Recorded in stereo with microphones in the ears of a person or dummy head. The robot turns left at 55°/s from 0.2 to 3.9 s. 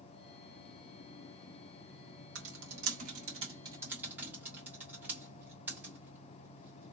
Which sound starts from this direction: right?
Typing on a keyboard, at 2.4 s.